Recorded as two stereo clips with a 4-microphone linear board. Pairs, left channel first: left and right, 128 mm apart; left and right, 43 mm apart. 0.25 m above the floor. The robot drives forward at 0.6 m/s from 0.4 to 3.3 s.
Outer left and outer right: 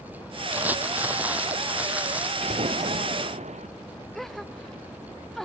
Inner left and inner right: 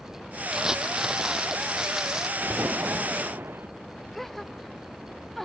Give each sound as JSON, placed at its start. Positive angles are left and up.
{"t": 0.5, "sound": "crumpling", "side_deg": -15}
{"t": 2.4, "sound": "an explosion", "side_deg": -60}
{"t": 4.2, "sound": "a gasp", "side_deg": 5}